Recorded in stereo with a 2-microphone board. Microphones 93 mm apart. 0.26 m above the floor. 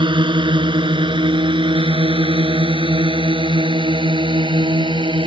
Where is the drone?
55° right (ahead or behind); by 5.3 s 60° right (ahead or behind).